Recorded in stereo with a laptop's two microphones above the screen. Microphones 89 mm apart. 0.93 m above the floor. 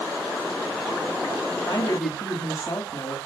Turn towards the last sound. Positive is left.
turn(degrees=45)  # may be behind; listen again after turning